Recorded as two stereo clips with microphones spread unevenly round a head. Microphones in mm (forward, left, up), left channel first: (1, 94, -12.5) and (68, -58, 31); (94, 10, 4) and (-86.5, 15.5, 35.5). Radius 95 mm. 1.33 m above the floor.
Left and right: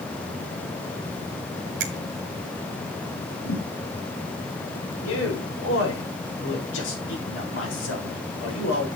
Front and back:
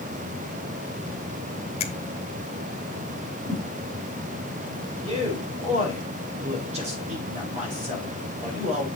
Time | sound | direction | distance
1.8 | a finger snap | 60° right | 1.1 m
3.4 | a thud | 95° left | 4 m
5.0 | a man speaking | 120° left | 4.5 m